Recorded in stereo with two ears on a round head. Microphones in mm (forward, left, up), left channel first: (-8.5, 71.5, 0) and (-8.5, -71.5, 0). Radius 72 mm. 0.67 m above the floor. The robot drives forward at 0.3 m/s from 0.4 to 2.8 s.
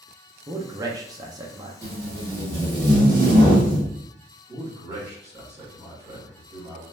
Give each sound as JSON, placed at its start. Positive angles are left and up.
{"t": 0.5, "sound": "a man speaking", "side_deg": -20, "distance_m": 0.6}
{"t": 1.8, "sound": "tape being pulled", "side_deg": -20, "distance_m": 1.1}
{"t": 4.5, "sound": "a man speaking", "side_deg": -25, "distance_m": 1.9}